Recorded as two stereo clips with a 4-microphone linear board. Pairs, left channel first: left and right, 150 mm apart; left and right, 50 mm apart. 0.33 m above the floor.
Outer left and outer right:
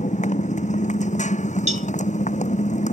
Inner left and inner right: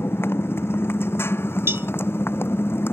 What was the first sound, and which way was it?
A motorcycle, 50° left (ahead or behind).